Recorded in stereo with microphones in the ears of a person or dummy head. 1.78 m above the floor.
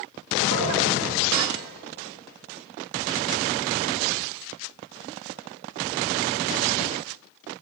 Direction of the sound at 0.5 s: 60° right (ahead or behind).